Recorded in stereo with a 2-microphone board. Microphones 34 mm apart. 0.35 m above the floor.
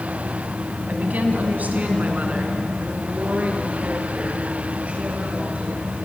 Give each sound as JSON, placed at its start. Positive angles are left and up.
{"t": 0.9, "sound": "a woman speaking", "side_deg": -55, "distance_m": 3.0}